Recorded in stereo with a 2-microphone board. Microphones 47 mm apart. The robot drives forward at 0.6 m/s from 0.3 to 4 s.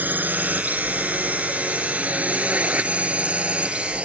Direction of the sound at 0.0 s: 40° right (ahead or behind).